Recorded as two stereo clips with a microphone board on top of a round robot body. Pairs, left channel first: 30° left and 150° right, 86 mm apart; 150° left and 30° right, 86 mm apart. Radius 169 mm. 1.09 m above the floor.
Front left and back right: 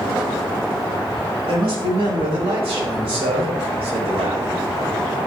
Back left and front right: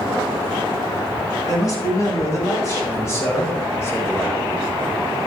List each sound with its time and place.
1.5 s a man speaking: 160° right, 7 m; by 4.5 s 145° right, 4 m